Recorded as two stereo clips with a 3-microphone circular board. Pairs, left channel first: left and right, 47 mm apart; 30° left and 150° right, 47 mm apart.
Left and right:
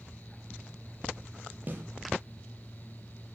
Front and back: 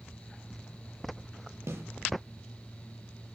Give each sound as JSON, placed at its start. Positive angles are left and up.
{"t": 1.7, "sound": "a snare drum", "azimuth_deg": -140, "distance_m": 7.5}